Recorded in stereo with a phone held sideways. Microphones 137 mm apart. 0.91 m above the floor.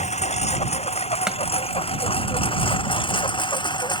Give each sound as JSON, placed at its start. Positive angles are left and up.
{"t": 0.0, "sound": "a lawn mower", "side_deg": 50}
{"t": 1.3, "sound": "chopping", "side_deg": -5}